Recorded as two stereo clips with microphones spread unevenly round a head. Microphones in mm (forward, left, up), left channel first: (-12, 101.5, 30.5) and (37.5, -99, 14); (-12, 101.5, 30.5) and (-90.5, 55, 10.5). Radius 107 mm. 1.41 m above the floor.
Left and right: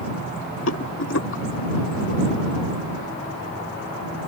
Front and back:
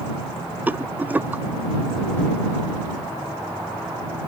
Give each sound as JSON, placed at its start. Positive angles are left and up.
{"t": 0.7, "sound": "a rattle", "azimuth_deg": 135}